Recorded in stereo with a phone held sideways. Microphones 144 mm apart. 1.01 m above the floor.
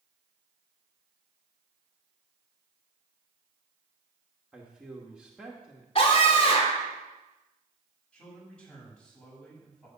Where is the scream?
45° left (ahead or behind), 3.5 m.